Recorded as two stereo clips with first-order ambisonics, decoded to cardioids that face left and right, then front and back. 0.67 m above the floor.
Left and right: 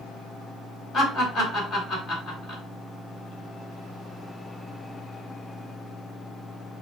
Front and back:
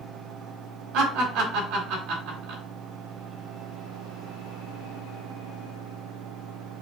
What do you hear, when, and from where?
0.9 s laughter: 160° left, 2 m